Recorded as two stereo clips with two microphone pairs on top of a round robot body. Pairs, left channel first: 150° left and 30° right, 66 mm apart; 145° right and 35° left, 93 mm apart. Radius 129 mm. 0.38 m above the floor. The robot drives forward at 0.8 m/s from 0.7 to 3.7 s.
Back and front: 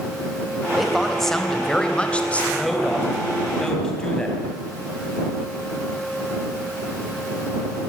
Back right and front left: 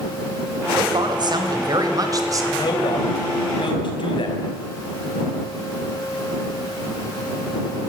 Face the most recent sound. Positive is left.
turn(degrees=-130)